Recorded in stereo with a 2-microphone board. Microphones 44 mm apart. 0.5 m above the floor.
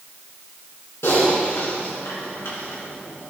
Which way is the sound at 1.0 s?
80° left.